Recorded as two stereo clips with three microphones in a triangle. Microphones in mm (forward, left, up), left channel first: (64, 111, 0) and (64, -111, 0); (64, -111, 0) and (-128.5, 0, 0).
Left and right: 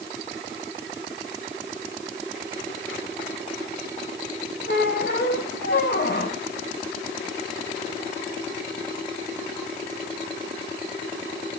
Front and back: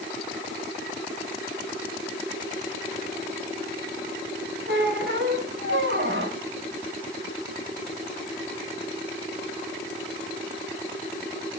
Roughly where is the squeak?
Behind left.